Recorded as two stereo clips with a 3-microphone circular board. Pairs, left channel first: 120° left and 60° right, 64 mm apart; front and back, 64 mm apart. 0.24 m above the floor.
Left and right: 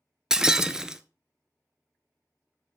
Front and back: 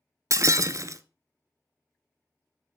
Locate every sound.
0.3 s breaking glass: 140° right, 0.5 m